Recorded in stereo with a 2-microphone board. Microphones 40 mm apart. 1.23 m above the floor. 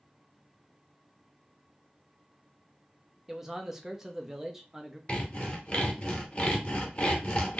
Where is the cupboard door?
I don't hear a cupboard door.